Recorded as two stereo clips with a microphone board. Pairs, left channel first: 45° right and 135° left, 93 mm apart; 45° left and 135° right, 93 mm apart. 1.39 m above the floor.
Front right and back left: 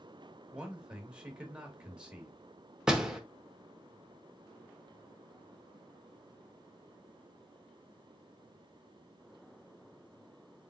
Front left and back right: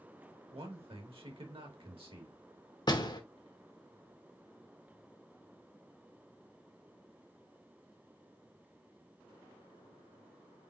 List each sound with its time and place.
0.5 s a man speaking: 145° right, 1.6 m
2.9 s a door slam: 55° left, 0.9 m